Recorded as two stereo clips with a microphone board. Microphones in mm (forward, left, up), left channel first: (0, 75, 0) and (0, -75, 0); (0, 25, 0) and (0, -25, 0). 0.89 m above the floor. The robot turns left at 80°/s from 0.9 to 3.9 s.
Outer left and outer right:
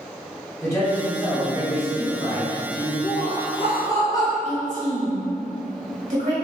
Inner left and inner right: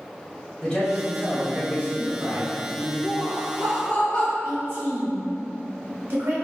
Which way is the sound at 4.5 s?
50° right (ahead or behind).